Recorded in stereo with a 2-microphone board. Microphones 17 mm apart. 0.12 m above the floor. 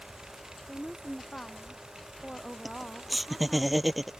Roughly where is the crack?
I don't hear a crack.